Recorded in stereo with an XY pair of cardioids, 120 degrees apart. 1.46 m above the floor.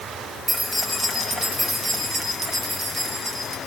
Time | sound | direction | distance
0.5 | keys jangling | 15° right | 7 m